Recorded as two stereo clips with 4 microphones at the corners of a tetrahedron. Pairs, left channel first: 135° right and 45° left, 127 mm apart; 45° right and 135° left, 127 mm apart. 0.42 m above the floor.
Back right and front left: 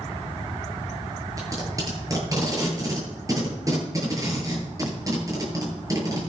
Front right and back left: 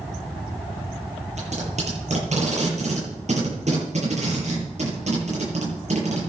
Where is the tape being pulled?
110° left, 9.5 m.